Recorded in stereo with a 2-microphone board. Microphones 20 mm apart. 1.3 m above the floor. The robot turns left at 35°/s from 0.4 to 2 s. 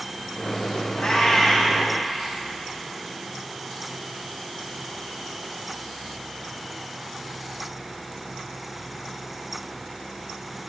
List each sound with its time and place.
1.0 s a cat meowing: 70° left (ahead or behind), 5.5 m; by 1.8 s 40° left (ahead or behind), 5.5 m